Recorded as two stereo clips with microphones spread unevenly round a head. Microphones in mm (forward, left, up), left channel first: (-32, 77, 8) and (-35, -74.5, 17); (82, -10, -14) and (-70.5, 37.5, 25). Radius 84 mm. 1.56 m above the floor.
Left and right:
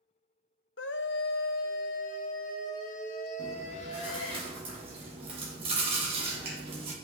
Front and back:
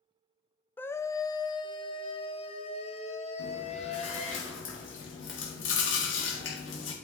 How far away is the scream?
About 0.7 m.